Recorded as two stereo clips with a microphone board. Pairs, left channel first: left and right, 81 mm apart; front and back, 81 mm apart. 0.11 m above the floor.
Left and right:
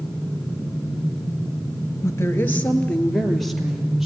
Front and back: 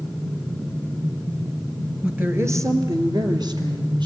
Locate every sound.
2.0 s a woman speaking: 115° left, 1.7 m; by 4.1 s 175° right, 3.5 m